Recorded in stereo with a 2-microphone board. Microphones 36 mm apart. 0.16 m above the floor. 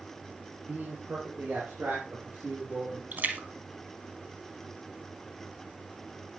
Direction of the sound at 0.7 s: 65° right (ahead or behind).